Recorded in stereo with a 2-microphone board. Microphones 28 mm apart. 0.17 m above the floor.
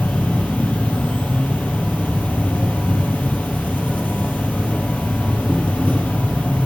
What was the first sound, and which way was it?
An insect, 60° left (ahead or behind).